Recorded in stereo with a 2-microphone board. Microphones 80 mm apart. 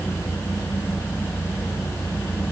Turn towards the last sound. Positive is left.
No sound to turn to.